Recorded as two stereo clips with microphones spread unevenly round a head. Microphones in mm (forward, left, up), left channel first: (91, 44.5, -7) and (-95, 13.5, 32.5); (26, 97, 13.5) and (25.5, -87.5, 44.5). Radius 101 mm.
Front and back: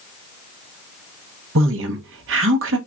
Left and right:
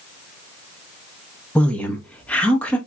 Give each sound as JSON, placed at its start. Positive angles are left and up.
{"t": 1.6, "sound": "a woman speaking", "azimuth_deg": 170, "distance_m": 1.2}